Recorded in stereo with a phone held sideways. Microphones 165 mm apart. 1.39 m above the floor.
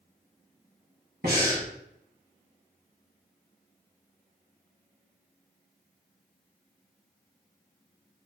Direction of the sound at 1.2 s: 70° right (ahead or behind).